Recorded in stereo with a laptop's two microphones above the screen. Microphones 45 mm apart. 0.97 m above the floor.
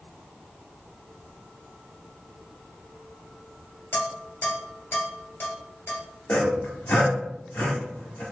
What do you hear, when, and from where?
3.9 s dishes clattering: 50° left (ahead or behind), 1.8 m
6.3 s sawing: 40° left (ahead or behind), 1.4 m